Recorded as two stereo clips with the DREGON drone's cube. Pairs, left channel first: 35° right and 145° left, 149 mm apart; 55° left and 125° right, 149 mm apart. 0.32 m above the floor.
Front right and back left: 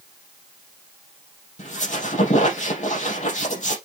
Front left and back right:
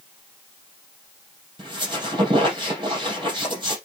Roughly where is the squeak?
Right.